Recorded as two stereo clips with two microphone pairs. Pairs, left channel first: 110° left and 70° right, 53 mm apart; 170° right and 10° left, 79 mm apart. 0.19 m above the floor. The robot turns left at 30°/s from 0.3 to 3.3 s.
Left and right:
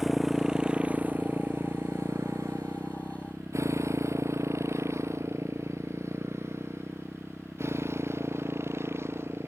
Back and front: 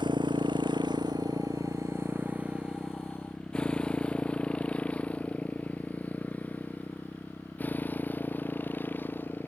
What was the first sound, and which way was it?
A motorcycle, 15° left.